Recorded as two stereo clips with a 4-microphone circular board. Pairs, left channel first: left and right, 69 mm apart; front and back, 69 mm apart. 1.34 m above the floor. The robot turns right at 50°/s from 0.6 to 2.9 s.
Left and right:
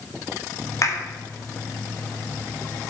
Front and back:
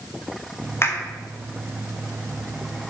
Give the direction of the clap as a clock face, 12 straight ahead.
10 o'clock.